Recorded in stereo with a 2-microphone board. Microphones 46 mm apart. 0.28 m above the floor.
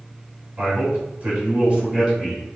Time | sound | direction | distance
0.6 | a man speaking | 45° right (ahead or behind) | 1.7 m